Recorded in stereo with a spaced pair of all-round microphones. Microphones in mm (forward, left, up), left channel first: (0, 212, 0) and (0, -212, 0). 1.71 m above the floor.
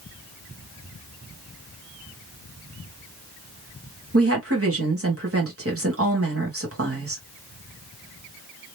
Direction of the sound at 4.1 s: 30° right (ahead or behind).